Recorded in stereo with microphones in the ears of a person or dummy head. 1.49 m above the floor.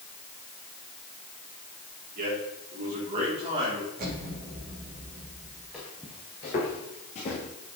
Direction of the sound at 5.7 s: 5° left (ahead or behind).